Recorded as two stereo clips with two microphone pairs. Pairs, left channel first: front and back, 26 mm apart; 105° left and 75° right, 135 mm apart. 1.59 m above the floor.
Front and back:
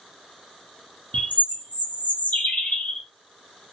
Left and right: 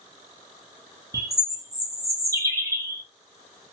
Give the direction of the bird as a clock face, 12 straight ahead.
12 o'clock.